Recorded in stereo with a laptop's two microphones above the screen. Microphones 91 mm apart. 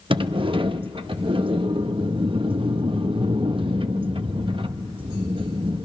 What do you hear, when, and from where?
0.1 s a sliding door: 70° right (ahead or behind), 0.6 m